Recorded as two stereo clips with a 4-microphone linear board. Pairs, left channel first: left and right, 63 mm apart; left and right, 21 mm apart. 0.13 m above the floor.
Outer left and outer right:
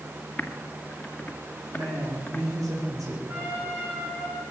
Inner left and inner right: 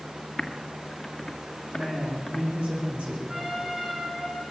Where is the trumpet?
45° right (ahead or behind), 10 m.